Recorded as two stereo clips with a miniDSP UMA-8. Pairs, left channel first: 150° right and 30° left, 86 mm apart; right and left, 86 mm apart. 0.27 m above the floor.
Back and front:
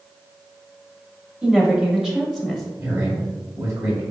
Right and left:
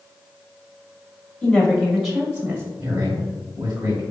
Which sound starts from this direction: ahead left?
A man speaking, at 2.8 s.